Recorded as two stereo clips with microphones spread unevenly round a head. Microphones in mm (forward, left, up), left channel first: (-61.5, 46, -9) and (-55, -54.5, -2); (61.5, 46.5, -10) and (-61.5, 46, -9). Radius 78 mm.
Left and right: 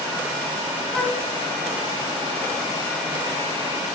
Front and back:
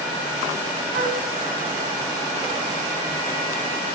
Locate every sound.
0.9 s a flute: straight behind, 3.5 m